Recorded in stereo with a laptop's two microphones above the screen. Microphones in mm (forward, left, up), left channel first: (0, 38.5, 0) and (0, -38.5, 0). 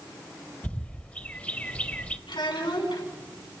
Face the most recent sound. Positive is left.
turn(degrees=70)  # may be behind; listen again after turning